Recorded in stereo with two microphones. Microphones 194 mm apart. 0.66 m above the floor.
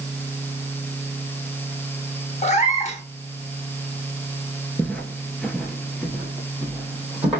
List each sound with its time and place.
2.4 s a cat meowing: 35° left (ahead or behind), 0.7 m
4.8 s footsteps: 5° left (ahead or behind), 0.6 m; by 7.4 s 5° right (ahead or behind), 1.8 m